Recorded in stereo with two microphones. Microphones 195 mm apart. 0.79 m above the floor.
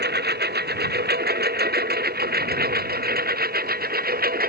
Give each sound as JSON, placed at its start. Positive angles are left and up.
{"t": 0.0, "sound": "a lawn mower", "side_deg": -55}